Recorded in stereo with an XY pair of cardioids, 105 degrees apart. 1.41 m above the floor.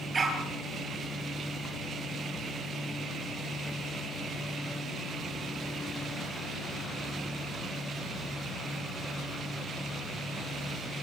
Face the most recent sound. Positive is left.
turn(degrees=-30)